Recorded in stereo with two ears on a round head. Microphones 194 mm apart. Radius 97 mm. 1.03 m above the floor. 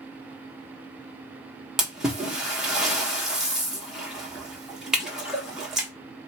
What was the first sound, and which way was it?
A splash, 5° right (ahead or behind).